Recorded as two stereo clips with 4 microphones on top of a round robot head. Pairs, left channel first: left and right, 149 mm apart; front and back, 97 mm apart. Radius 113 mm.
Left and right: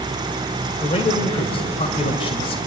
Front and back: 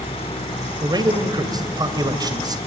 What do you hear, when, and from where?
0.8 s a man speaking: 140° left, 2.5 m